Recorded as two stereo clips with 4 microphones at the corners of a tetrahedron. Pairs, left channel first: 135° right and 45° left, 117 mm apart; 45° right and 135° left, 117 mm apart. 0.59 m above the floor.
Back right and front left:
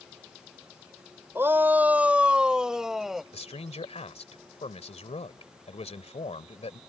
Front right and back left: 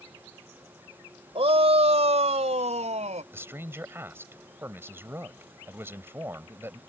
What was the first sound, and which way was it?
A shout, 115° left.